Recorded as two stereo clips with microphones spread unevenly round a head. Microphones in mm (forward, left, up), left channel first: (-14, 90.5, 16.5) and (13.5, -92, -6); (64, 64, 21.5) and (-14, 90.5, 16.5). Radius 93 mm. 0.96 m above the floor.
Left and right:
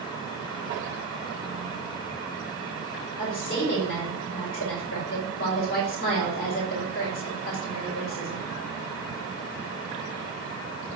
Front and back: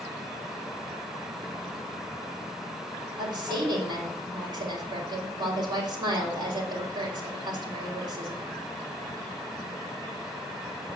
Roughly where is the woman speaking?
Behind left.